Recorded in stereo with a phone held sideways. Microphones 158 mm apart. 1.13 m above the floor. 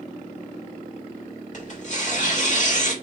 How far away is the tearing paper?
About 1.9 m.